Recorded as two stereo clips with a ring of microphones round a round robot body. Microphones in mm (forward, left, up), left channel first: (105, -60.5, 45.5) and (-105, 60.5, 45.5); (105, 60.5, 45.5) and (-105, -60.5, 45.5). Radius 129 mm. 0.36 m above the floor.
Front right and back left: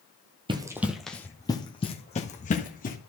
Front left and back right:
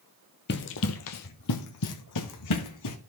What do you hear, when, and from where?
0.5 s running footsteps: 80° left, 0.9 m; by 3.0 s 25° left, 2.0 m